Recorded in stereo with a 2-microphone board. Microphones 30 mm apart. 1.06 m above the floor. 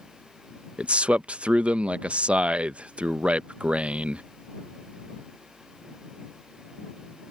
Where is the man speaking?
50° right (ahead or behind).